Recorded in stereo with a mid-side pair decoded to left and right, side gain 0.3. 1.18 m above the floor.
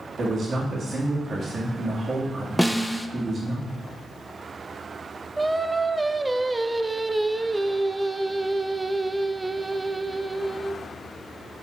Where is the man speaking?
65° right, 1.9 m.